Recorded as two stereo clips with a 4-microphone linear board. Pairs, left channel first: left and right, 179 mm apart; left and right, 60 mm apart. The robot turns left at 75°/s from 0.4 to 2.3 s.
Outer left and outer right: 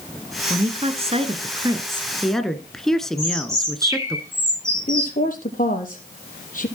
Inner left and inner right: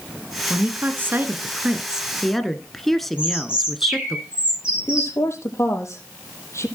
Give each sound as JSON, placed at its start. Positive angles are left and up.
{"t": 0.5, "sound": "a woman speaking", "azimuth_deg": -50, "distance_m": 1.4}
{"t": 3.2, "sound": "a bird", "side_deg": -15, "distance_m": 6.0}
{"t": 4.9, "sound": "a woman speaking", "side_deg": 50, "distance_m": 5.0}